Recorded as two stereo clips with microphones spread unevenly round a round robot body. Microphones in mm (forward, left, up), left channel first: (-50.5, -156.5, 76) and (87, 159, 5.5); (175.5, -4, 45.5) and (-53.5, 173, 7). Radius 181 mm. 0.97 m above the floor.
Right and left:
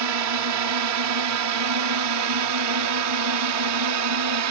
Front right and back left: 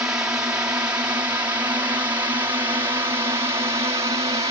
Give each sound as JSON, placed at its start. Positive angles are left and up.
{"t": 0.0, "sound": "a drone", "azimuth_deg": 60}